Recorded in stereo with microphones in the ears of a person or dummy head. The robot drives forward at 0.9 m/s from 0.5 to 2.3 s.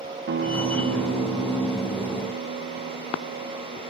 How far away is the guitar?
About 2 m.